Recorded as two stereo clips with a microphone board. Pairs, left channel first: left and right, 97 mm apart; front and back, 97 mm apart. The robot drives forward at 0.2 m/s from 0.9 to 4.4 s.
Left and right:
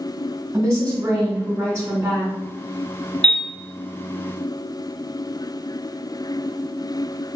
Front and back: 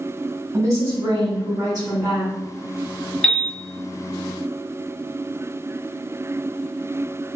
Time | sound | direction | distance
0.5 | a woman speaking | 140° right | 1.9 m
3.2 | a piano | 85° right | 0.9 m